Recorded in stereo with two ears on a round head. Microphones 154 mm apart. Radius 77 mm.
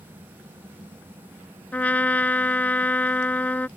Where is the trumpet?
10° left (ahead or behind).